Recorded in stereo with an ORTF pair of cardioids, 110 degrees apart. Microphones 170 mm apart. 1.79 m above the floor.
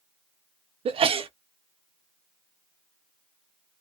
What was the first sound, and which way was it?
A sneeze, 35° right.